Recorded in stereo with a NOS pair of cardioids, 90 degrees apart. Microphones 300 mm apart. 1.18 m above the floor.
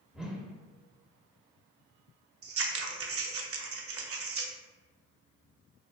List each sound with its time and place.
0.1 s a whoosh: straight ahead, 0.6 m
2.4 s scissors: 50° right, 0.6 m